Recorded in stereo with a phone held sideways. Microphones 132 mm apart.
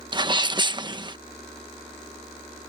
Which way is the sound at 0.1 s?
35° right (ahead or behind).